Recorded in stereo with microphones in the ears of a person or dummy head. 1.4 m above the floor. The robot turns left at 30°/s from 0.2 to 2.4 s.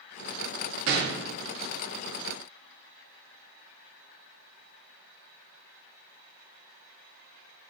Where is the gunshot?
60° right (ahead or behind), 0.5 m; by 1.2 s 65° right (ahead or behind), 0.5 m.